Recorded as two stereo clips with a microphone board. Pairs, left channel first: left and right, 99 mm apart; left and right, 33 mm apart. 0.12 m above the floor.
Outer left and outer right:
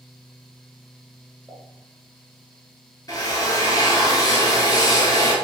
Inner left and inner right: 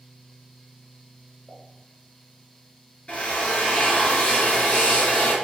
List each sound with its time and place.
1.5 s a pop: 5° left (ahead or behind), 1.0 m
3.1 s a drill: 40° left (ahead or behind), 0.8 m